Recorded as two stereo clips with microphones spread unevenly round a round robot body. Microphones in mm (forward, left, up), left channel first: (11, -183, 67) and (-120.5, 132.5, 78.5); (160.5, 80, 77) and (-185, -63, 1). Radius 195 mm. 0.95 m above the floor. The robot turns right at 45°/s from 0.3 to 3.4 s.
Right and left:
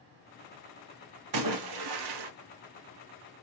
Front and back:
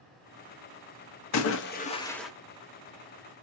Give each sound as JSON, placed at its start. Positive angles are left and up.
{"t": 1.3, "sound": "a splash", "azimuth_deg": 75, "distance_m": 0.9}